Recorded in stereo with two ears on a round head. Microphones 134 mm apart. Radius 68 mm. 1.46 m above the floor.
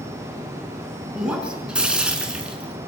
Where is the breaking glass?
5° right (ahead or behind), 5 m.